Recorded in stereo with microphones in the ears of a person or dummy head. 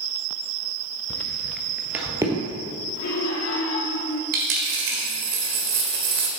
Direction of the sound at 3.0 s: 75° left (ahead or behind).